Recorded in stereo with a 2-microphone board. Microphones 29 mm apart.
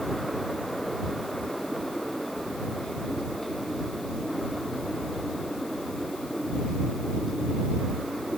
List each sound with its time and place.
Only background noise.